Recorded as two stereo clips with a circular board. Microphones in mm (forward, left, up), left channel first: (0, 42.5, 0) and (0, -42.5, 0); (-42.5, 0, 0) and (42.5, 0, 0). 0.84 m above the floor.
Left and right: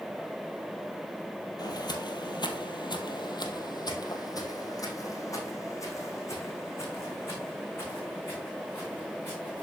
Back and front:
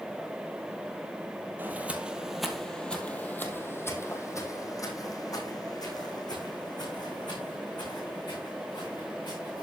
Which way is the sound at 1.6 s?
65° left.